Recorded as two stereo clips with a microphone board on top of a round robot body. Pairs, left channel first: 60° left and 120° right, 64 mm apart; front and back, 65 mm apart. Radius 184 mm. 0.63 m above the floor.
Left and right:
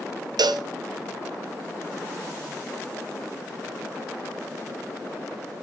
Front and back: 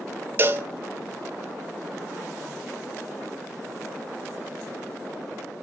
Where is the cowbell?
120° right, 0.7 m.